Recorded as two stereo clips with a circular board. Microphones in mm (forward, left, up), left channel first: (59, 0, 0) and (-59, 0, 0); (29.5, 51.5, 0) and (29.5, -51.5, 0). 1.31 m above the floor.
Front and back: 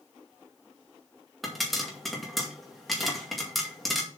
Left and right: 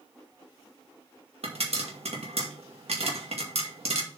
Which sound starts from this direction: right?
A pop, at 1.4 s.